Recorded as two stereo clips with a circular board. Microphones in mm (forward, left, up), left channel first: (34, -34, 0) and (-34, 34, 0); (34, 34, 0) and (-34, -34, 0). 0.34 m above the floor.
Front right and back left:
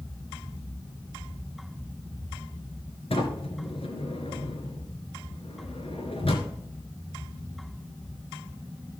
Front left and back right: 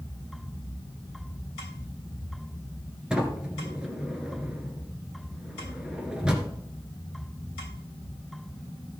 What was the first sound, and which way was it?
A sliding door, 55° right.